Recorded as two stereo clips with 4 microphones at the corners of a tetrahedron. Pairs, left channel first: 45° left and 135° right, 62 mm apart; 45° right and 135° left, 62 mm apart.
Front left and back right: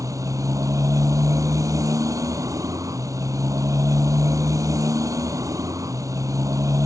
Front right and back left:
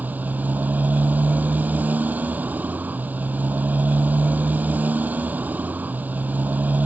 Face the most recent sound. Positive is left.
turn(degrees=-160)